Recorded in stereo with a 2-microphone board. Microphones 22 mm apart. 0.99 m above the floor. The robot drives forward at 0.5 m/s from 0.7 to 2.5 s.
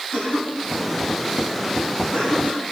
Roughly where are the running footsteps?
I don't hear running footsteps.